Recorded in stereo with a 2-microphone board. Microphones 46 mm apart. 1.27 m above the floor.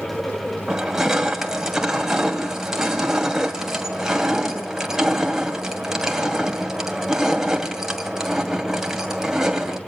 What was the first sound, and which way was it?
Crushing, 10° right (ahead or behind).